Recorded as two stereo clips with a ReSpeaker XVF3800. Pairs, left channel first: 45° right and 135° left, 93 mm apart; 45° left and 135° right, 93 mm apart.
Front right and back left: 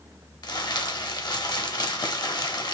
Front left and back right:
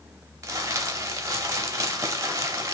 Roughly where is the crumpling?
Right.